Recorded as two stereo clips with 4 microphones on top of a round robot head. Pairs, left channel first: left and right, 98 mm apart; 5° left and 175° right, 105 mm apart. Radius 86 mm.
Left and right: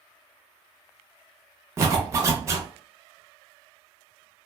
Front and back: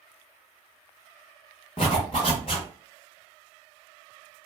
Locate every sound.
1.8 s a zipper: 40° right, 0.5 m